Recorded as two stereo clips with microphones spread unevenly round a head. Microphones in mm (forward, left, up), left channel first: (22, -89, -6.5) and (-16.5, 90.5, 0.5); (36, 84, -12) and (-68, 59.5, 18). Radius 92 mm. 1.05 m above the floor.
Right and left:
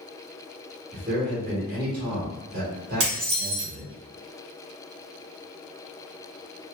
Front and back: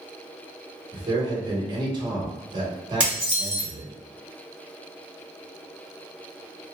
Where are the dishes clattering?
115° left, 1.4 m.